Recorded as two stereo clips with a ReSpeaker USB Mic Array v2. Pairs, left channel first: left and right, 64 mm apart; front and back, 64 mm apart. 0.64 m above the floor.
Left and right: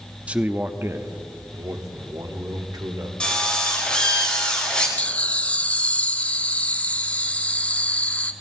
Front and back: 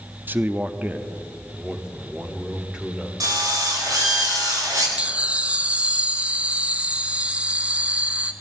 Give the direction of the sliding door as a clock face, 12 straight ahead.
No sliding door in this recording.